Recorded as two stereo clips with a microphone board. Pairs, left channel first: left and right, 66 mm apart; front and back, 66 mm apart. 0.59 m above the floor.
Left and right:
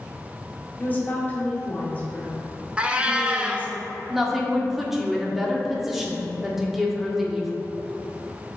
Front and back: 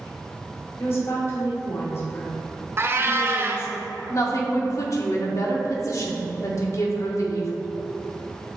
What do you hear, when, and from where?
0.8 s a woman speaking: 35° left, 1.8 m
2.8 s a cat meowing: 155° right, 0.6 m
4.1 s a woman speaking: 5° right, 1.1 m